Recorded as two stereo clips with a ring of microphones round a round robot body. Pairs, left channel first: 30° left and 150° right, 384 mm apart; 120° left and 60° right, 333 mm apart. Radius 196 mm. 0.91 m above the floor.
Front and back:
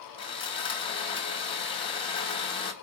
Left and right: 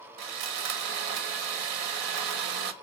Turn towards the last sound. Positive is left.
turn(degrees=-45)